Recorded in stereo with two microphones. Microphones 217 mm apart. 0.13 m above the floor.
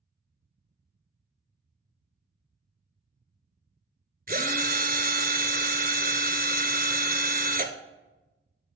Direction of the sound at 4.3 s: 40° right (ahead or behind).